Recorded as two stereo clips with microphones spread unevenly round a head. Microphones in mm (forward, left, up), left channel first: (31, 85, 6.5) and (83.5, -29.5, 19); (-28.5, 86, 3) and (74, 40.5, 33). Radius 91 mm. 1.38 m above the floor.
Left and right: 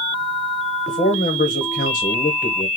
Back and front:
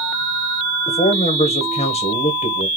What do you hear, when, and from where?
0.9 s a man speaking: 155° left, 1.2 m